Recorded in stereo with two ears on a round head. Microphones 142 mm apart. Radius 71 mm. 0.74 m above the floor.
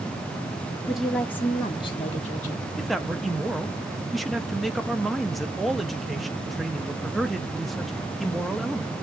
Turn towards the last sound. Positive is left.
turn(degrees=0)  # may be behind; listen again after turning